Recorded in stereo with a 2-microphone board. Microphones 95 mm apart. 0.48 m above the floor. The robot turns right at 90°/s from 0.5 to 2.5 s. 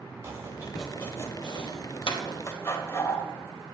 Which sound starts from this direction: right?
Chopping, at 0.2 s.